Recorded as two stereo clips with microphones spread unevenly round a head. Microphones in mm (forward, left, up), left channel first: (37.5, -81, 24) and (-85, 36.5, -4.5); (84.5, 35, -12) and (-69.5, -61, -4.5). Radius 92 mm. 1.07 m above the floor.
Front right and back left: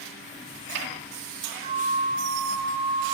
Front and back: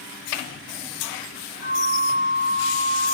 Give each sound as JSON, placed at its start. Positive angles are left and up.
{"t": 1.6, "sound": "a flute", "azimuth_deg": 70, "distance_m": 9.0}